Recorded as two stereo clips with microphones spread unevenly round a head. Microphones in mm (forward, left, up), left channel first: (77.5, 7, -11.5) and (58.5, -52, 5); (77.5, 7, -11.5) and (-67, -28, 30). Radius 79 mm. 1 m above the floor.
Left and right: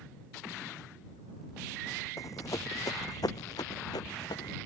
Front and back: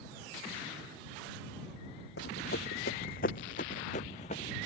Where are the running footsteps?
40° left; by 4.6 s 65° left.